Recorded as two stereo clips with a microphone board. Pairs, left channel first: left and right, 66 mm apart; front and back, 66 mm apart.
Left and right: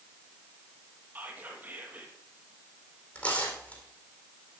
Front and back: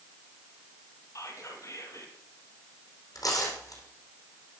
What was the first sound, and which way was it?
Whispering, 30° right.